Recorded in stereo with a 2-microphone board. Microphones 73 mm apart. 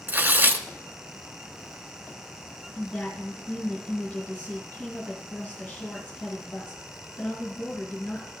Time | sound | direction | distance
0.1 | tearing paper | 25° right (ahead or behind) | 0.7 m
2.8 | a woman speaking | 20° left (ahead or behind) | 2 m